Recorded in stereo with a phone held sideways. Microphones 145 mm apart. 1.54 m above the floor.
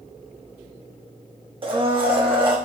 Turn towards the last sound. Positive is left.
turn(degrees=-35)  # may be behind; listen again after turning